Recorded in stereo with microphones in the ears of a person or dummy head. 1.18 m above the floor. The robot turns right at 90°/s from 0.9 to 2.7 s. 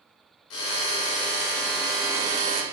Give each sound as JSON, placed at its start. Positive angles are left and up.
{"t": 0.5, "sound": "a drill", "azimuth_deg": 80, "distance_m": 0.6}